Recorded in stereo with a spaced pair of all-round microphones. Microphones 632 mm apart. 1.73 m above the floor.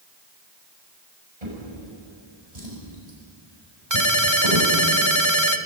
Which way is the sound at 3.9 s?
30° right (ahead or behind).